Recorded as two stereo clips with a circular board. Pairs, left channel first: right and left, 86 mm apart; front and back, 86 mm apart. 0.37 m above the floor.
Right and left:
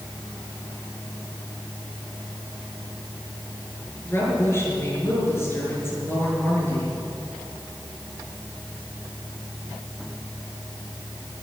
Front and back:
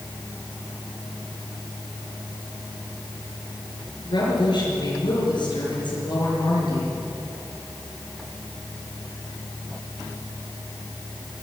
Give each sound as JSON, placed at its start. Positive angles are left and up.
{"t": 4.0, "sound": "a woman speaking", "azimuth_deg": -30, "distance_m": 6.0}